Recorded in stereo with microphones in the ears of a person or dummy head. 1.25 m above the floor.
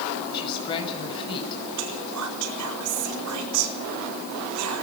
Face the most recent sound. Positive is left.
turn(degrees=-65)  # may be behind; listen again after turning